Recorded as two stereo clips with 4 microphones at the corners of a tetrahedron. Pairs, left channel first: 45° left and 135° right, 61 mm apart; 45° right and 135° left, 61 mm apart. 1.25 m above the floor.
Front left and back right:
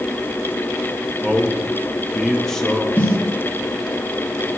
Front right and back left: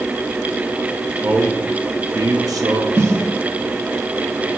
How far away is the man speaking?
About 1.3 m.